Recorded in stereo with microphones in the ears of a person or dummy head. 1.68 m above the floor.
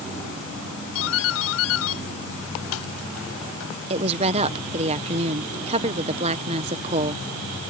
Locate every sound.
0.9 s a doorbell: 75° left (ahead or behind)
3.9 s a woman speaking: 35° right (ahead or behind)